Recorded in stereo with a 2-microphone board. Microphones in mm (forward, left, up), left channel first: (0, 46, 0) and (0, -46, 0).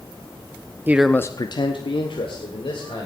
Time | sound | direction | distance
0.9 | a man speaking | 20° right (ahead or behind) | 0.6 m